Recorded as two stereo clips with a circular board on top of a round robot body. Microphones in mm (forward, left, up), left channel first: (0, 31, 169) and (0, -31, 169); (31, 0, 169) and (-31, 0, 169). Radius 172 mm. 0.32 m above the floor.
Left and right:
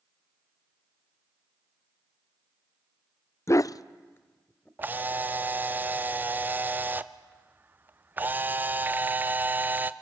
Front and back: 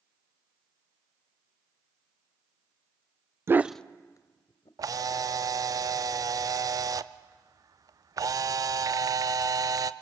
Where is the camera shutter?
155° right, 0.6 m.